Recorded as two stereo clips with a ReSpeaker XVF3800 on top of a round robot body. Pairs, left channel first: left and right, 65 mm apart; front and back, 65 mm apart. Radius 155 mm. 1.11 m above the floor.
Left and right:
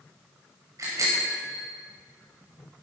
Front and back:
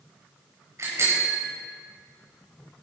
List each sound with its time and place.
0.8 s a bicycle bell: 135° right, 5 m